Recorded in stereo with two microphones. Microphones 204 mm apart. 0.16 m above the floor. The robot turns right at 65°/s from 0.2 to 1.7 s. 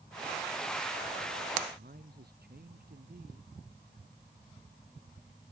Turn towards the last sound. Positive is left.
turn(degrees=-55)  # may be behind; listen again after turning